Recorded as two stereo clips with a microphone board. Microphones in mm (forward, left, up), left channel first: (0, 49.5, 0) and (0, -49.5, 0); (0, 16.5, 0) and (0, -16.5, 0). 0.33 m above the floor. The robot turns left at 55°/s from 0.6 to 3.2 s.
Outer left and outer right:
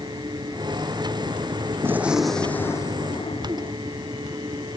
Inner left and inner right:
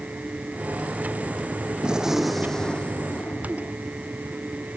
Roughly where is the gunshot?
Behind right.